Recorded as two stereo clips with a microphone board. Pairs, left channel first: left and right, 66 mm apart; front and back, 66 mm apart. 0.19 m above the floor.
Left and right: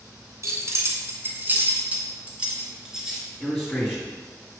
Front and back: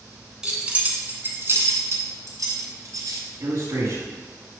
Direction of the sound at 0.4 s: 105° right.